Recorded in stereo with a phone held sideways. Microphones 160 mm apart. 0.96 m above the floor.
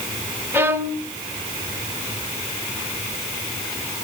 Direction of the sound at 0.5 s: 15° right (ahead or behind).